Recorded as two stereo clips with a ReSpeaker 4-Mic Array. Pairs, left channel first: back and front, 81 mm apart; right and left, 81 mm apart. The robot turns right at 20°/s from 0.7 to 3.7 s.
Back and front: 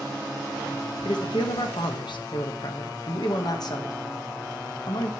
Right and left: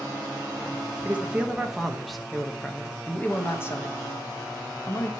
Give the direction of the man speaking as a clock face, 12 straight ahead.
7 o'clock.